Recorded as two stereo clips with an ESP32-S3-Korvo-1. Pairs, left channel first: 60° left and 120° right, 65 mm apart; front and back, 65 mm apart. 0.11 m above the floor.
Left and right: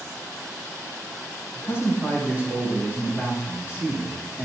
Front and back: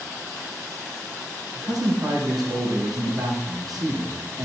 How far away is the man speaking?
About 4.5 m.